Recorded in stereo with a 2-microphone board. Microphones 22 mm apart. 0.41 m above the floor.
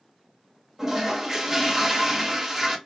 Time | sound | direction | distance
0.8 | a toilet flushing | 15° right (ahead or behind) | 0.7 m